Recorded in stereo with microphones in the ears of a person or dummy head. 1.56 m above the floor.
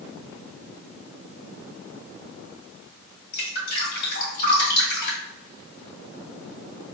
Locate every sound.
3.3 s dripping: 60° left (ahead or behind), 2.0 m